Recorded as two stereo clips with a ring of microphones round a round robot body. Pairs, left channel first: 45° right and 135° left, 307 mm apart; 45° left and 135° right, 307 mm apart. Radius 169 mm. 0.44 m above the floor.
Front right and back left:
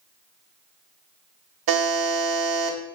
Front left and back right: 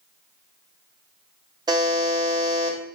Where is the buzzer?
150° left, 0.8 m.